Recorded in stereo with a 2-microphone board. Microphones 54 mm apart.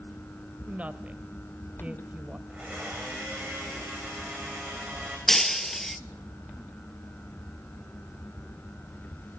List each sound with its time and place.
0.7 s a woman speaking: 25° right (ahead or behind), 1.2 m
2.5 s a blender: 15° right (ahead or behind), 9 m
5.3 s breaking glass: 5° left (ahead or behind), 0.6 m